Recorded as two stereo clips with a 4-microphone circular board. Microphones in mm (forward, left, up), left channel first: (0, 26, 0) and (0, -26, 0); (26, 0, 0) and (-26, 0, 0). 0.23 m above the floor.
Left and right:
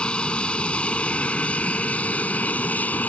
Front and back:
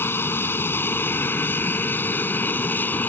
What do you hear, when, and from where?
0.0 s an aircraft: 25° left; by 3.1 s 40° left